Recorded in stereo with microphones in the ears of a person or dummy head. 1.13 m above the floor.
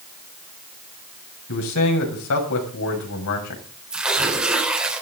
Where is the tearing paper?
5° right (ahead or behind), 4 m.